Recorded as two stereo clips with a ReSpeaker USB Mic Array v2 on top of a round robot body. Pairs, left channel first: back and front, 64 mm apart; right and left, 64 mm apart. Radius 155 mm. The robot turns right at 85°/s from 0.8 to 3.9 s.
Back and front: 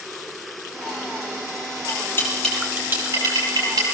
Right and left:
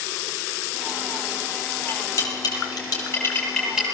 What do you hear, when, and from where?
1.9 s cutlery clinking: 150° right, 9.5 m; by 3.9 s 25° left, 9.5 m